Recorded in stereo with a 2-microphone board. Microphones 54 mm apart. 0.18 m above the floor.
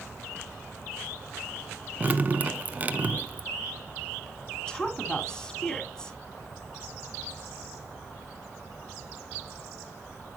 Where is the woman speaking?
15° left (ahead or behind), 1.9 m.